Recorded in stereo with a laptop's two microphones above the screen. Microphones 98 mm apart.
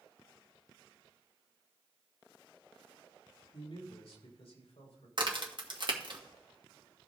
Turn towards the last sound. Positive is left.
turn(degrees=-50)  # may be behind; listen again after turning